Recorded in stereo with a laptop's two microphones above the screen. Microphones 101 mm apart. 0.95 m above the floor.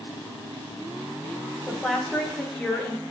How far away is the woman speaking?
About 0.6 m.